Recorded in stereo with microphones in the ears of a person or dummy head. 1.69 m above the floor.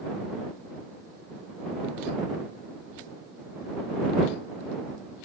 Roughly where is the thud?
No thud in this recording.